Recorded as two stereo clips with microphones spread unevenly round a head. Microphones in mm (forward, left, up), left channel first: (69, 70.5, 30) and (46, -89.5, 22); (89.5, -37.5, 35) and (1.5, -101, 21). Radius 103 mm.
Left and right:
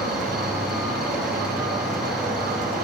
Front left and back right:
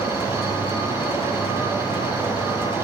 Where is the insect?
10° right, 1.9 m.